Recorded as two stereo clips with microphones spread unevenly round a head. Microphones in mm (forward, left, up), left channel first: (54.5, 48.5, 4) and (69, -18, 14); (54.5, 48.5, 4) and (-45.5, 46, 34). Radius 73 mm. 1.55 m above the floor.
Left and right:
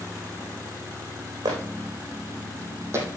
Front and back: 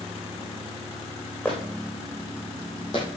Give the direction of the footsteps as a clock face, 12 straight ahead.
3 o'clock.